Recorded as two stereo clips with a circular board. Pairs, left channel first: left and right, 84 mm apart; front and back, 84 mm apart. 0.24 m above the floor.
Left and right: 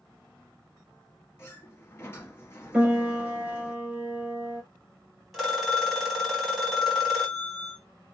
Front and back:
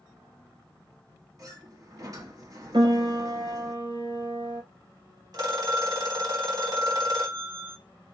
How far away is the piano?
About 1.6 m.